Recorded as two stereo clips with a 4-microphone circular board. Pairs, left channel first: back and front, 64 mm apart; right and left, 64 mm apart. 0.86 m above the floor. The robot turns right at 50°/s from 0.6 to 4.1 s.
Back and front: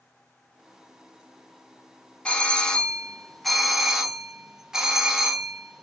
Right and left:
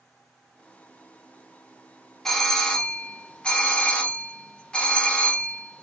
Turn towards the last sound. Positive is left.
turn(degrees=-65)